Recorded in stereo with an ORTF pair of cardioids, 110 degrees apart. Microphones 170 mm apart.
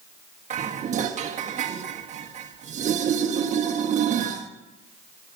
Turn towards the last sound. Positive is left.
turn(degrees=-45)